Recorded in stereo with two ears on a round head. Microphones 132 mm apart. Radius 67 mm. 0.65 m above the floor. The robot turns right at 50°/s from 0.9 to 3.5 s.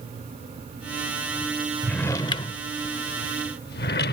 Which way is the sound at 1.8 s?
5° left (ahead or behind).